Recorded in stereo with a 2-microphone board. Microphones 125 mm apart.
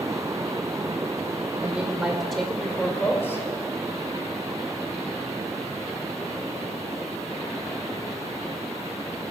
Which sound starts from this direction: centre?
A woman speaking, at 1.6 s.